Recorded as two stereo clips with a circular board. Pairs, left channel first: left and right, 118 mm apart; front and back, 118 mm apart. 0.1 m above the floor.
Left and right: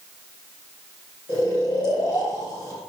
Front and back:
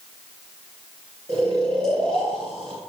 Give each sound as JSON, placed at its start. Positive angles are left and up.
{"t": 1.3, "sound": "snoring", "azimuth_deg": 140, "distance_m": 3.5}